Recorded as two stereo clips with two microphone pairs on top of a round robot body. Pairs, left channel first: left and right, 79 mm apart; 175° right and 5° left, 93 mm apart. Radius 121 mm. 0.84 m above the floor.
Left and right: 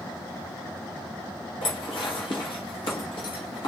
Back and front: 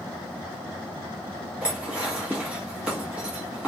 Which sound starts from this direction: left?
Dishes clattering, at 1.6 s.